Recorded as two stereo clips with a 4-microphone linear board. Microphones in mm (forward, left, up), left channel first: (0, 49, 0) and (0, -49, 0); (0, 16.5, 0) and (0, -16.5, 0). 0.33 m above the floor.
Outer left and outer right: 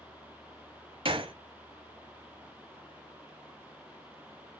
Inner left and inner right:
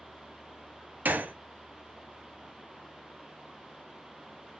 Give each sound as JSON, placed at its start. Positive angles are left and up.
{"t": 1.1, "sound": "a gunshot", "side_deg": -70, "distance_m": 0.6}